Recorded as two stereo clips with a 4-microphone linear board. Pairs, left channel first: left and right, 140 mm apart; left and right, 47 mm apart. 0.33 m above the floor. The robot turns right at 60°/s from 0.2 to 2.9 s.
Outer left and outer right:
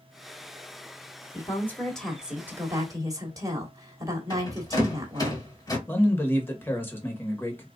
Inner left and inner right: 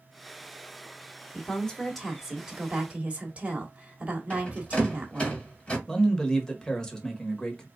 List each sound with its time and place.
1.3 s a woman speaking: 135° left, 1.5 m; by 5.3 s 130° right, 1.5 m
4.3 s a rattle: 25° left (ahead or behind), 1.8 m
5.9 s a man speaking: 15° left (ahead or behind), 1.1 m